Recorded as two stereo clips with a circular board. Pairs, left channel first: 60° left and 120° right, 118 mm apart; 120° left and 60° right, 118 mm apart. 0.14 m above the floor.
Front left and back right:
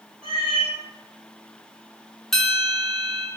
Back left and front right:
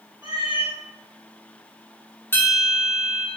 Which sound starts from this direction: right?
A cat meowing, at 0.2 s.